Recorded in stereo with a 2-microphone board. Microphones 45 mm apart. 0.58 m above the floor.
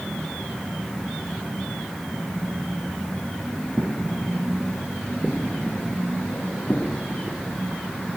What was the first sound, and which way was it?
Footsteps, 15° left (ahead or behind).